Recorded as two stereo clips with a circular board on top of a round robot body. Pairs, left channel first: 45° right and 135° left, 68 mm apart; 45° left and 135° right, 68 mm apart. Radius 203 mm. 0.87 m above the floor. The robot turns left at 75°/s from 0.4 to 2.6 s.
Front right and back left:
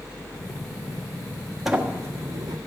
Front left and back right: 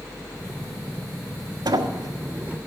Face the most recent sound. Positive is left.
turn(degrees=150)